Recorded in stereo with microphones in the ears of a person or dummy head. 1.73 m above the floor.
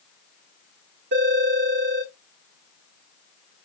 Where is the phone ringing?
60° right (ahead or behind), 1.9 m.